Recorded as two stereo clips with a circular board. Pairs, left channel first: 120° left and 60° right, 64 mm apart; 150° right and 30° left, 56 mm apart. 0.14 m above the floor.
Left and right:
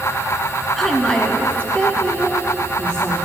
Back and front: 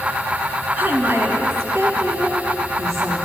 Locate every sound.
0.8 s a woman speaking: 35° left, 1.1 m; by 3.1 s 50° left, 3.5 m